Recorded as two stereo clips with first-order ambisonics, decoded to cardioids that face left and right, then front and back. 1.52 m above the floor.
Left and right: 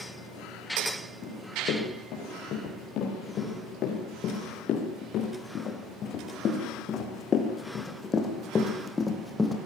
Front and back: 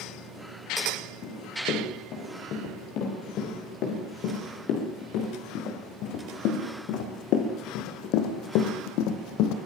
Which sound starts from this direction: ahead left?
Running footsteps, at 1.2 s.